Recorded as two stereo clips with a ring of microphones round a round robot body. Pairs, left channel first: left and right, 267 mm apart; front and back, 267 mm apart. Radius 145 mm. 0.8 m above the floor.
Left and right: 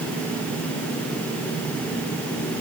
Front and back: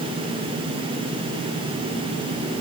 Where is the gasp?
No gasp in this recording.